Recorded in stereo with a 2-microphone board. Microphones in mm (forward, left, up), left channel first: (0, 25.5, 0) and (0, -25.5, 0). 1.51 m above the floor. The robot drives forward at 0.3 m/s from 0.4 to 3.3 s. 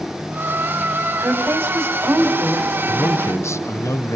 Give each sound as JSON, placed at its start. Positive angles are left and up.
{"t": 1.2, "sound": "a woman speaking", "side_deg": -65, "distance_m": 5.5}
{"t": 2.9, "sound": "a man speaking", "side_deg": 80, "distance_m": 1.0}